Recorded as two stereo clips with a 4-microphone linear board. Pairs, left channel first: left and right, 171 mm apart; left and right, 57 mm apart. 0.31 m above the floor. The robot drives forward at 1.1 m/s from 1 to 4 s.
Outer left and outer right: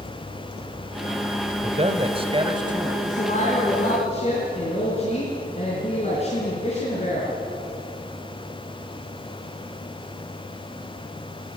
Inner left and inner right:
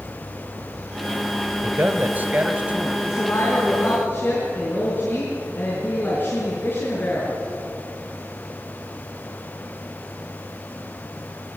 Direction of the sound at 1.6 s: 35° right (ahead or behind).